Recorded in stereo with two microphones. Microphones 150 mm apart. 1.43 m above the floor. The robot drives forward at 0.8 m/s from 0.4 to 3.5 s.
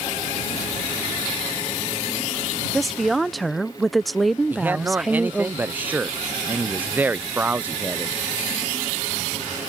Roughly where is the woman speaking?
Centre.